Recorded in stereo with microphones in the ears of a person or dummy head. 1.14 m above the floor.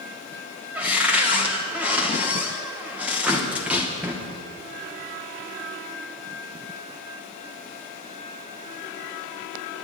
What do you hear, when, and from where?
0.8 s a cupboard door: 15° right (ahead or behind), 1.1 m